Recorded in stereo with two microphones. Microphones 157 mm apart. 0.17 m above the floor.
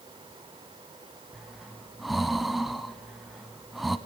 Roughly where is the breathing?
Centre.